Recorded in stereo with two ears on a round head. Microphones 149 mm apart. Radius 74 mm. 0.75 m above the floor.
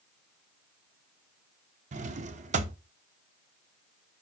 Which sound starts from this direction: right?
A drawer, at 1.9 s.